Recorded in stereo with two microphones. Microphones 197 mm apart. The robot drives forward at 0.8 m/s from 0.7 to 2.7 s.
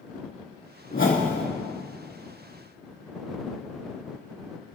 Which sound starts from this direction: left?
A whoosh, at 0.9 s.